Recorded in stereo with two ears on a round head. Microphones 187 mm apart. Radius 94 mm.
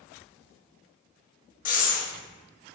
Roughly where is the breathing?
Left.